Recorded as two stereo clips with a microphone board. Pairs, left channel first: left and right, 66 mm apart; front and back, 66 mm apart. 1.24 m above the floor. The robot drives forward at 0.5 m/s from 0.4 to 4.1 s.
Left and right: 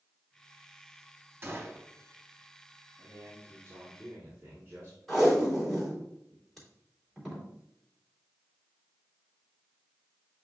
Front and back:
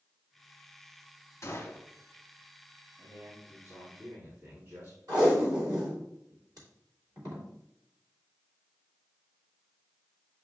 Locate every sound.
1.4 s a gunshot: 40° right, 1.4 m; by 1.9 s 45° right, 1.3 m
3.0 s a man speaking: 140° right, 3 m; by 5.0 s 145° right, 3 m
5.1 s tape being pulled: straight behind, 2.5 m